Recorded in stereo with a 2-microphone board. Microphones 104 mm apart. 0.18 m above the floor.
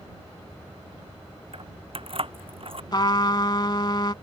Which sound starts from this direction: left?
A trumpet, at 2.9 s.